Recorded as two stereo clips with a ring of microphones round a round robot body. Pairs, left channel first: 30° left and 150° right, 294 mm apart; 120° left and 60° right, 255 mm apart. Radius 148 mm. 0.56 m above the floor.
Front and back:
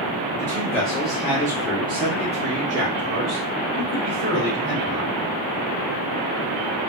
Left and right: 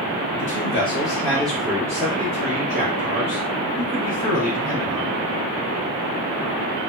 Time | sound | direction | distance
0.4 | a man speaking | 105° left | 1.1 m